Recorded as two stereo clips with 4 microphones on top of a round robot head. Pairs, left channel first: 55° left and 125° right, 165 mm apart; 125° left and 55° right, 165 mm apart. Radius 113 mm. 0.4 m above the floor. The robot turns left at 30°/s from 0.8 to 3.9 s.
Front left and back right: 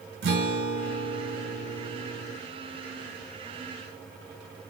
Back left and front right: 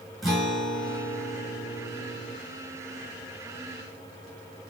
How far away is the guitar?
About 2.5 m.